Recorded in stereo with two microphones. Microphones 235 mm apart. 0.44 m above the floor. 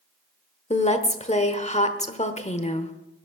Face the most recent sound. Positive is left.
turn(degrees=30)  # may be behind; listen again after turning